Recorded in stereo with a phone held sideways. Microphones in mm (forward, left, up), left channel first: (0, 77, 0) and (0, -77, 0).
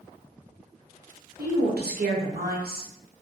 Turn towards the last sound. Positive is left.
turn(degrees=-90)